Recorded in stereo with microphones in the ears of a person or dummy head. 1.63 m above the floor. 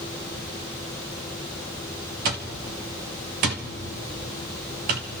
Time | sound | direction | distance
2.2 | an alarm clock | 40° right (ahead or behind) | 1.0 m